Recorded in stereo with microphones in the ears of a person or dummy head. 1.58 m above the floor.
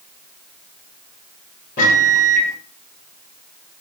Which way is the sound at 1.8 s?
50° left (ahead or behind).